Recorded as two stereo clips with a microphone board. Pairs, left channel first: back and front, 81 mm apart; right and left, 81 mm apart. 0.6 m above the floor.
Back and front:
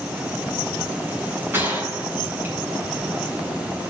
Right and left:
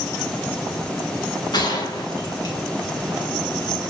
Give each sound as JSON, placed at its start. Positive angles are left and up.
{"t": 1.5, "sound": "a gunshot", "azimuth_deg": -65, "distance_m": 4.0}